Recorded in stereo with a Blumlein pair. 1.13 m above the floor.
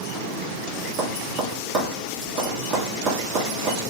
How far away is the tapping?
About 2.5 m.